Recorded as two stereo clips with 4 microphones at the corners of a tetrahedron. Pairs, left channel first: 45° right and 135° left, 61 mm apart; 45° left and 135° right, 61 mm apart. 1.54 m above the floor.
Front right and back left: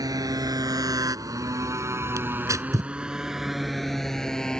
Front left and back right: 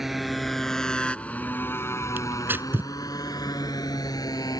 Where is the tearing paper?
170° left.